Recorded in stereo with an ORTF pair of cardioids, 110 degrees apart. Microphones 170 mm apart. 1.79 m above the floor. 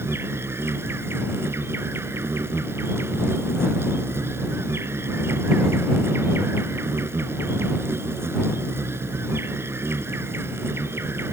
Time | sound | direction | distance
0.0 | an insect | 15° right | ?